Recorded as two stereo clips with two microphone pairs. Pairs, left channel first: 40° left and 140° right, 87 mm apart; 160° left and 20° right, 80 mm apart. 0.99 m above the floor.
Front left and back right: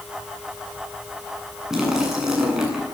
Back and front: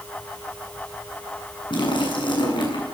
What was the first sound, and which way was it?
A splash, 140° left.